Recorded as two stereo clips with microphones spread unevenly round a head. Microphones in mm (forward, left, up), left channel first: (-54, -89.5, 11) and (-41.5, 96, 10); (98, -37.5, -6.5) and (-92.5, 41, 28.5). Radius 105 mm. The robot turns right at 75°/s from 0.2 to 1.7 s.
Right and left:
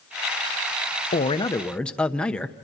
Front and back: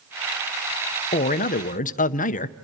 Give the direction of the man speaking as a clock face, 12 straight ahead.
2 o'clock.